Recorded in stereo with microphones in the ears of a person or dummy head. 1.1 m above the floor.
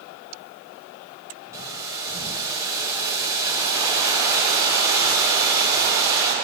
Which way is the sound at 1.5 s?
20° right (ahead or behind).